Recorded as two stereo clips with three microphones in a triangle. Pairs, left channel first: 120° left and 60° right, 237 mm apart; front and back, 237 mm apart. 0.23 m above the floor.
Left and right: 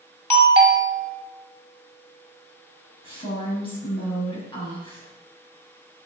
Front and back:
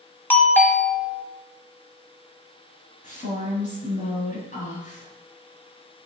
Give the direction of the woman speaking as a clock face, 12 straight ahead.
10 o'clock.